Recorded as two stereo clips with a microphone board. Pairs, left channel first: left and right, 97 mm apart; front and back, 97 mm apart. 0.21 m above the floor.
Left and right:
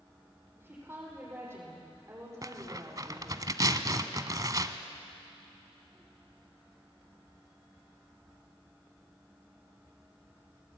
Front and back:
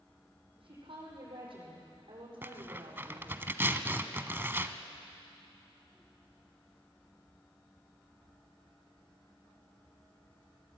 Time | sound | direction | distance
0.6 | a woman speaking | 155° right | 8 m
2.4 | tearing paper | 120° right | 1.0 m